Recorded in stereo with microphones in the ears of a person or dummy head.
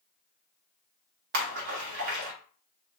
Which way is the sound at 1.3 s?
60° right (ahead or behind).